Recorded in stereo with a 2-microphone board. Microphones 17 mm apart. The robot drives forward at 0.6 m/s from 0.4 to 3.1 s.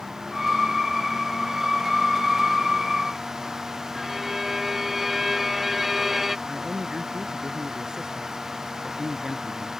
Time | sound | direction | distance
4.0 | a violin | 15° right (ahead or behind) | ?
6.5 | a man speaking | 50° right (ahead or behind) | ?